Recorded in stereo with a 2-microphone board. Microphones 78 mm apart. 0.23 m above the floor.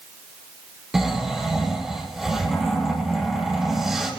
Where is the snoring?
5° right (ahead or behind), 7 m.